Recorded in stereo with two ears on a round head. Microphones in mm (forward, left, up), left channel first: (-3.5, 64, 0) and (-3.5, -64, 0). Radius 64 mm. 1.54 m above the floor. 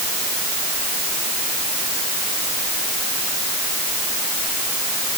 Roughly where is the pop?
No pop in this recording.